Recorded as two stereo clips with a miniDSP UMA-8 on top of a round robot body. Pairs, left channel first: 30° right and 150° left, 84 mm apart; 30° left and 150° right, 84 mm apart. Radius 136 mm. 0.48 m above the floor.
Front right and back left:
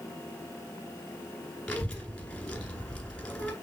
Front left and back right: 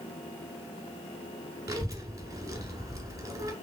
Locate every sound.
1.7 s a child speaking: 110° right, 1.5 m